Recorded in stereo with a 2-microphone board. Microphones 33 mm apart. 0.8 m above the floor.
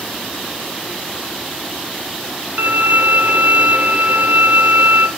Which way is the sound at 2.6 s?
60° right (ahead or behind).